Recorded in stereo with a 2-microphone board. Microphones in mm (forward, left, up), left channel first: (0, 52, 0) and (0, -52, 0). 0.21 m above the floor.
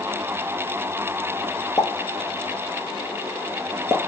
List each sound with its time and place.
1.8 s a pop: 30° left (ahead or behind), 1.4 m